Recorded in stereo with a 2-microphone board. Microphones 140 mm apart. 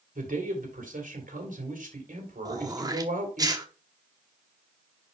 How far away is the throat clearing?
About 1.0 m.